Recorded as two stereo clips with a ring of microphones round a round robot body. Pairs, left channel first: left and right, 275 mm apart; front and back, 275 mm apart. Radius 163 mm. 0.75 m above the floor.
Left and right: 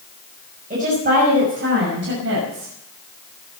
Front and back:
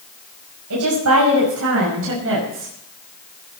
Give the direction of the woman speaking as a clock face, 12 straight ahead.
5 o'clock.